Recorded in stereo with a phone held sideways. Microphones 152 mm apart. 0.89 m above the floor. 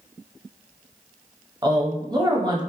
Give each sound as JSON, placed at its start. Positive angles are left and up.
{"t": 1.6, "sound": "a woman speaking", "side_deg": -30, "distance_m": 0.7}